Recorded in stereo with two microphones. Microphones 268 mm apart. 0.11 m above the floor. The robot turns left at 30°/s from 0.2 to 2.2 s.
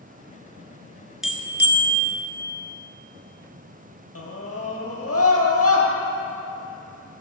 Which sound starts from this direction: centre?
A bell, at 1.2 s.